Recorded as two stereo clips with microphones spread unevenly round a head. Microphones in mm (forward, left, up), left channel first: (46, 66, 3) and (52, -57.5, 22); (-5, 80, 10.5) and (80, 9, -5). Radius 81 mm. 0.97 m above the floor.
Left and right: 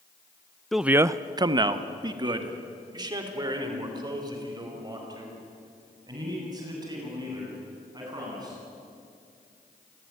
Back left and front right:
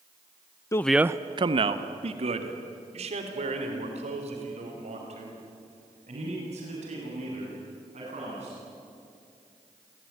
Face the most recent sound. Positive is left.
turn(degrees=-30)